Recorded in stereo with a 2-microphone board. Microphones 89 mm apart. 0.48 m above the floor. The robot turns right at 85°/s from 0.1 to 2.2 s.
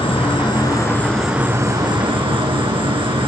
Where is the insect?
85° left, 1.7 m; by 3.3 s 95° right, 1.7 m.